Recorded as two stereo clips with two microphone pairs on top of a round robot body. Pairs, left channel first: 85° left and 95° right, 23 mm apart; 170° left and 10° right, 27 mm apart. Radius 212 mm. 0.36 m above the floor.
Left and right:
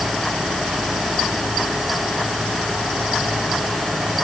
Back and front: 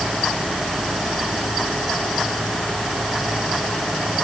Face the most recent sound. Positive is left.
No sound to turn to.